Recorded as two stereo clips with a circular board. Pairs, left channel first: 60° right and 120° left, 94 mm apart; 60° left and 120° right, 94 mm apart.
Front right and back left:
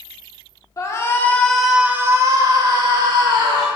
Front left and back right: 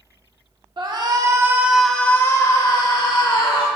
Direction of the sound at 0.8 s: 105° right.